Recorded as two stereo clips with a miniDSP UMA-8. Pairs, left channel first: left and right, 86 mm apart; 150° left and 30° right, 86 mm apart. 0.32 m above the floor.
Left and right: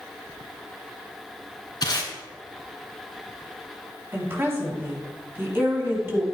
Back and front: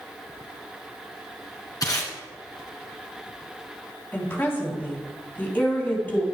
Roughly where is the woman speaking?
Behind right.